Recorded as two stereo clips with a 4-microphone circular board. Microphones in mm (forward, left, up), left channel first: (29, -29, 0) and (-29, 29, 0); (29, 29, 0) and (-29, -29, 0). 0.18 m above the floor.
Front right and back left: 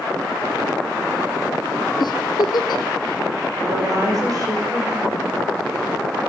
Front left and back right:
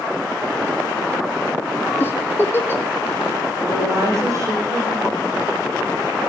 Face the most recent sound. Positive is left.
turn(degrees=175)